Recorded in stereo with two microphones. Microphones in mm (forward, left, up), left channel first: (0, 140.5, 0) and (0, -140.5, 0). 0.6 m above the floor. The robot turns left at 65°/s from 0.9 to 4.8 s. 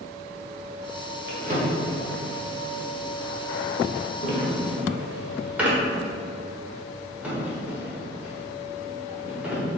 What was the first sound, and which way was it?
A drawer, 40° right (ahead or behind).